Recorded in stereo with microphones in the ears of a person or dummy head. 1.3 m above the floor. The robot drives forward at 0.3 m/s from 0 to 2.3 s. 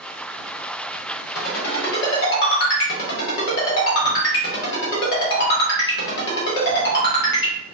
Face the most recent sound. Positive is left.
turn(degrees=65)  # may be behind; listen again after turning